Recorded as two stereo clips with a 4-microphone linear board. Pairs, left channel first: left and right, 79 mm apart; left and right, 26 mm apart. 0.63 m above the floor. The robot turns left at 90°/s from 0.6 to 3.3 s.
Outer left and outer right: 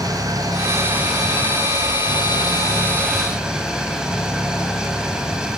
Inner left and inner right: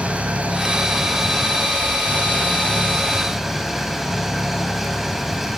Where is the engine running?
125° right, 4 m; by 5.6 s 10° right, 4 m.